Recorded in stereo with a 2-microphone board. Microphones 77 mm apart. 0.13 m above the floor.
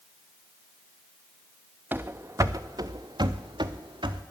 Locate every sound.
1.9 s running footsteps: 25° right (ahead or behind), 0.9 m; by 4.2 s 90° right, 1.7 m